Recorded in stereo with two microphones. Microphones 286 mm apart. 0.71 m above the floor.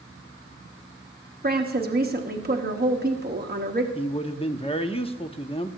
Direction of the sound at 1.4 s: 35° right (ahead or behind).